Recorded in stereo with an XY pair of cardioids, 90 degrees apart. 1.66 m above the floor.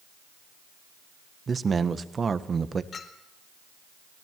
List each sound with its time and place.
1.5 s a man speaking: 40° right, 1.5 m
2.9 s a clink: 55° left, 3.5 m